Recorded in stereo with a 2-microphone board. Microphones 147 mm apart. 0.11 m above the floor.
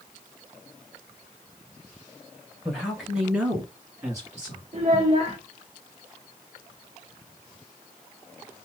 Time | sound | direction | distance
2.6 | a man speaking | centre (ahead or behind) | 2.5 m
4.7 | a child speaking | 45° right (ahead or behind) | 1.0 m